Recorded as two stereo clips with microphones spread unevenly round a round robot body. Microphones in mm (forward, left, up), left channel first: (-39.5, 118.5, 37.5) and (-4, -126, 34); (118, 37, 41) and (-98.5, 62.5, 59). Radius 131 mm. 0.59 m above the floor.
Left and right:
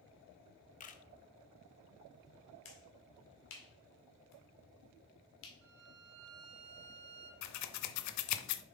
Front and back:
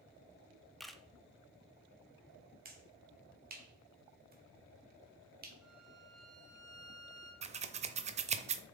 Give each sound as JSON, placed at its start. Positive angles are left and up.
{"t": 0.8, "sound": "a camera shutter", "azimuth_deg": 75, "distance_m": 0.9}
{"t": 2.6, "sound": "a finger snap", "azimuth_deg": 130, "distance_m": 2.0}
{"t": 5.6, "sound": "a violin", "azimuth_deg": -95, "distance_m": 1.7}
{"t": 7.4, "sound": "scissors", "azimuth_deg": 115, "distance_m": 0.6}